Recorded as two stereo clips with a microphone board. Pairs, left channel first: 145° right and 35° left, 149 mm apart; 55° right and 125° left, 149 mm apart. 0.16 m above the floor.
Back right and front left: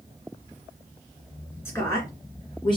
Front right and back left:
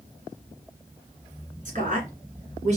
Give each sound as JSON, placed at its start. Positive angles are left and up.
{"t": 1.6, "sound": "a woman speaking", "azimuth_deg": 145, "distance_m": 2.5}